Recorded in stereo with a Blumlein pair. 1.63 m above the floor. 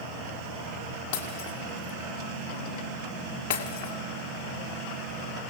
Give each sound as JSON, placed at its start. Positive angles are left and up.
{"t": 1.1, "sound": "breaking glass", "azimuth_deg": 50, "distance_m": 3.0}